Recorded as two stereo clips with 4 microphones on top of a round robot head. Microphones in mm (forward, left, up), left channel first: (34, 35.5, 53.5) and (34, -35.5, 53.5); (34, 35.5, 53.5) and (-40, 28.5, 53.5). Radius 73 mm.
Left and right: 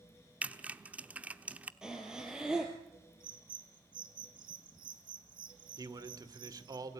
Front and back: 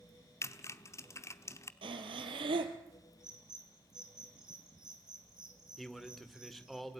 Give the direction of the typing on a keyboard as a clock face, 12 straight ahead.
1 o'clock.